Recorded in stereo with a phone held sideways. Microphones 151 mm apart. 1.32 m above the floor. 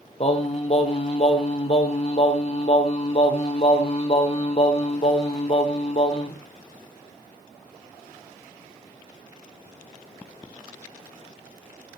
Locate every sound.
0.2 s singing: 40° left (ahead or behind), 1.2 m